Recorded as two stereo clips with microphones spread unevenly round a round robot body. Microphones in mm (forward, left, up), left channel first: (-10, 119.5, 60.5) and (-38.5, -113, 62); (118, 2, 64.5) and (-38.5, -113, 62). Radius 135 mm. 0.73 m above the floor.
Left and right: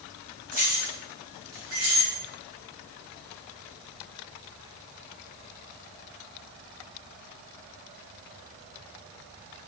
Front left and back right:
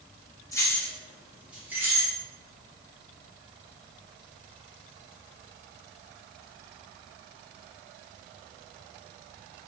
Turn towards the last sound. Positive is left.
turn(degrees=-70)